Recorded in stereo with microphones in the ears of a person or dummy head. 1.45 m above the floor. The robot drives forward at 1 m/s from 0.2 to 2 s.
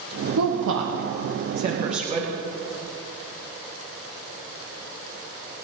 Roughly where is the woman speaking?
Right.